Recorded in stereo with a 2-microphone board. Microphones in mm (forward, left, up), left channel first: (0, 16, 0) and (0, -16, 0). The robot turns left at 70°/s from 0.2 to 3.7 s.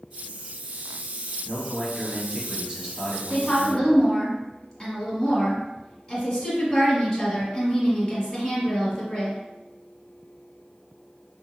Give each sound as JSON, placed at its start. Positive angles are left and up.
{"t": 1.4, "sound": "a man speaking", "side_deg": -5, "distance_m": 1.1}
{"t": 3.3, "sound": "a woman speaking", "side_deg": 25, "distance_m": 1.7}